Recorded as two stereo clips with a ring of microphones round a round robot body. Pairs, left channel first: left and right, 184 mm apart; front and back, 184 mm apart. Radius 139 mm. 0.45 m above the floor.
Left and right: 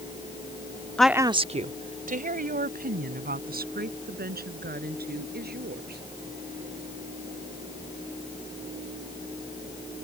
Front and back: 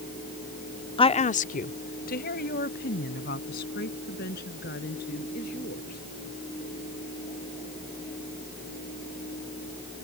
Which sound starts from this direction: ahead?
A woman speaking, at 1.0 s.